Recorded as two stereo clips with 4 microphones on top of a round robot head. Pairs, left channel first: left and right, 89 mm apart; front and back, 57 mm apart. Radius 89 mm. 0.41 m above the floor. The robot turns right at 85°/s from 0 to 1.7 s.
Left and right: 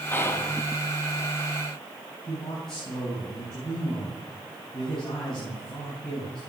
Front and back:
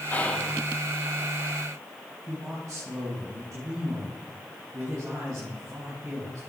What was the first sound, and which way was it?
Whispering, 40° left.